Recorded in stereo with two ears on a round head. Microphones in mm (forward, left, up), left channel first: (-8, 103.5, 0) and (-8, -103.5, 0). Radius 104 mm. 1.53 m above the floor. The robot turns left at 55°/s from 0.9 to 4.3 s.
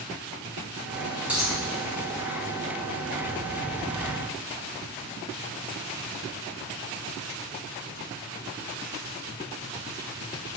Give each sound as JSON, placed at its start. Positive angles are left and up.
{"t": 1.3, "sound": "a dropped coin", "side_deg": -10, "distance_m": 4.5}